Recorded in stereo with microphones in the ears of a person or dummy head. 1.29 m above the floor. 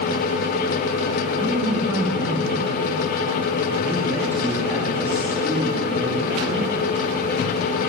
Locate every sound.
1.4 s a man speaking: 10° right (ahead or behind), 3 m